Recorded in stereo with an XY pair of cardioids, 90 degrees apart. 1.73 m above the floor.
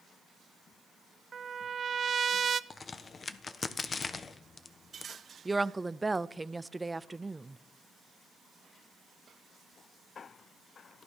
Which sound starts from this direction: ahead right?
A trumpet, at 1.3 s.